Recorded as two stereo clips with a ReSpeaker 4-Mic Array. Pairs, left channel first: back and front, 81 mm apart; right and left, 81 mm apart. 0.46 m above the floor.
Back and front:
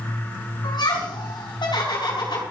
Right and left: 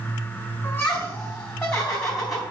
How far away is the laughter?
About 4 m.